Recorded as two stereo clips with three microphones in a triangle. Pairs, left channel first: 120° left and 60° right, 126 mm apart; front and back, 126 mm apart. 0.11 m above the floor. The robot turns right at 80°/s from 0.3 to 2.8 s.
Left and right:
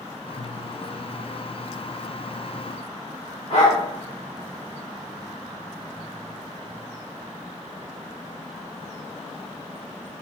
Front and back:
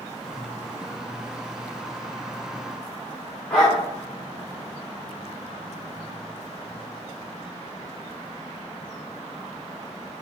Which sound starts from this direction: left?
A dog barking, at 3.5 s.